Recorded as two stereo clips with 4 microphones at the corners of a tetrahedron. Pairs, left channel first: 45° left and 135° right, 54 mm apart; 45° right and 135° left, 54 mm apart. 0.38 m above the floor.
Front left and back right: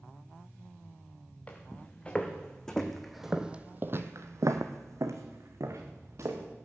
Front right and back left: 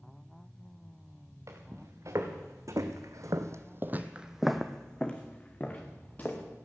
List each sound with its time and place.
1.5 s footsteps: 110° left, 3 m; by 6.4 s 100° right, 3 m